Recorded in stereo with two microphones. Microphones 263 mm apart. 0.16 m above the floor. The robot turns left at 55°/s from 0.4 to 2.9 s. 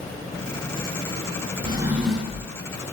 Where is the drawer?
155° right, 0.5 m; by 2.5 s 155° left, 0.5 m.